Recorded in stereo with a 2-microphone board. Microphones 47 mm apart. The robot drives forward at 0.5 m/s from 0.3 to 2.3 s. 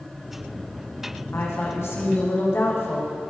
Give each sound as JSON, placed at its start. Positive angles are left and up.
{"t": 1.3, "sound": "a woman speaking", "side_deg": 65, "distance_m": 6.5}